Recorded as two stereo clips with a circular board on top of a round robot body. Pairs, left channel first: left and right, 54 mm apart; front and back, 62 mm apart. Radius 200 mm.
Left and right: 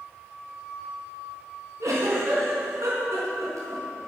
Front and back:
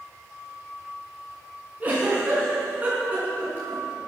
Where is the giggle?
115° right, 5.5 m.